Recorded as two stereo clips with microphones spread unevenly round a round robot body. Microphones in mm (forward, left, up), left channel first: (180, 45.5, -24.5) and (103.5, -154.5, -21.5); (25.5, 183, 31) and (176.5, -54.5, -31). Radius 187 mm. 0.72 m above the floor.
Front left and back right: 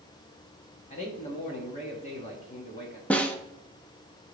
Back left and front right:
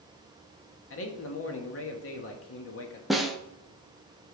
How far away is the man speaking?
About 1.3 m.